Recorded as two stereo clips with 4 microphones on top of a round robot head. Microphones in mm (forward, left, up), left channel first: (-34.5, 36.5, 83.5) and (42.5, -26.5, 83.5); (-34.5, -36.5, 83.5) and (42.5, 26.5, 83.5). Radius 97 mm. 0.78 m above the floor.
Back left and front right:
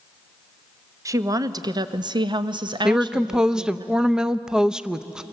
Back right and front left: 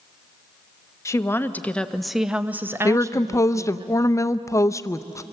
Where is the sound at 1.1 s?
90° right, 1.1 m; by 3.9 s 5° left, 1.3 m.